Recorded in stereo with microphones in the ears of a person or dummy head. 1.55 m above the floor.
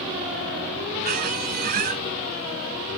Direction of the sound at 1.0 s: 50° right (ahead or behind).